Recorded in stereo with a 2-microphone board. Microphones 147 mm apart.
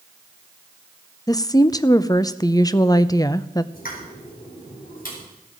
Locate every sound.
1.3 s a woman speaking: 25° left (ahead or behind), 0.6 m
3.7 s a pop: 75° left (ahead or behind), 4.5 m